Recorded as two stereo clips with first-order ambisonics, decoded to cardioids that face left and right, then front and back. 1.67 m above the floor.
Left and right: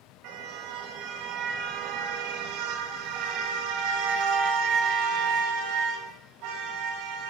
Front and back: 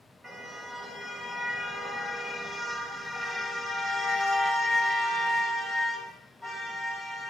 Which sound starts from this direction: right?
A car horn, at 0.2 s.